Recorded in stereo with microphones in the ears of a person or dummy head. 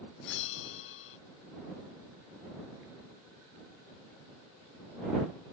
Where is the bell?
70° left (ahead or behind).